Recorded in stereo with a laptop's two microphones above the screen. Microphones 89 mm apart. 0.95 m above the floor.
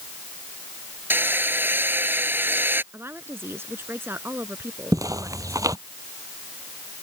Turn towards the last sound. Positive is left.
turn(degrees=-40)  # may be behind; listen again after turning